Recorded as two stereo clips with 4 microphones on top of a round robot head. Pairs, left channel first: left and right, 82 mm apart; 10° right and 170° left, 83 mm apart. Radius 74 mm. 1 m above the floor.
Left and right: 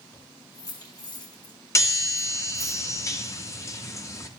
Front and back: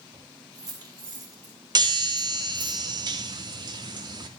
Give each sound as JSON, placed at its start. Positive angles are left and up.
{"t": 0.1, "sound": "keys jangling", "azimuth_deg": 130, "distance_m": 6.5}
{"t": 1.8, "sound": "a chime", "azimuth_deg": 140, "distance_m": 2.5}